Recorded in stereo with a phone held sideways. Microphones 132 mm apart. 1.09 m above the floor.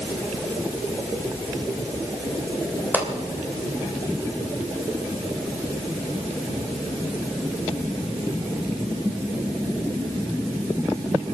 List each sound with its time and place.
2.9 s a pop: 15° right (ahead or behind), 2.5 m